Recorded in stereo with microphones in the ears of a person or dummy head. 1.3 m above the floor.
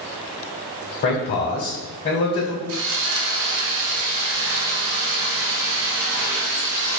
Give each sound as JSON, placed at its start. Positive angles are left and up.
{"t": 1.0, "sound": "a man speaking", "side_deg": 45, "distance_m": 0.9}
{"t": 2.7, "sound": "sawing", "side_deg": -85, "distance_m": 0.6}